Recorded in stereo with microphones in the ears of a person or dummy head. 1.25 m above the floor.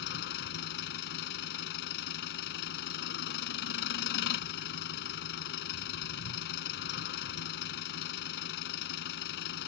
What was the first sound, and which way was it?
An engine running, 60° left (ahead or behind).